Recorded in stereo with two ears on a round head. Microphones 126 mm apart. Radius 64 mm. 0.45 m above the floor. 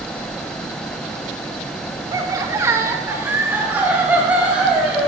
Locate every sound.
2.1 s laughter: 25° right (ahead or behind), 1.3 m; by 5.1 s 10° right (ahead or behind), 3 m